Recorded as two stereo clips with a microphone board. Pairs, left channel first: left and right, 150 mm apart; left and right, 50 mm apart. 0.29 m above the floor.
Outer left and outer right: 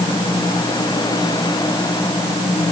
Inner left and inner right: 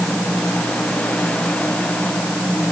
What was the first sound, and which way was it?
Only background noise.